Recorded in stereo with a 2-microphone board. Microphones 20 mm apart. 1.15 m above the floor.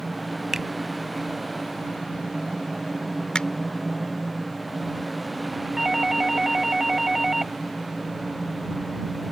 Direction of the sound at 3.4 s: 50° left (ahead or behind).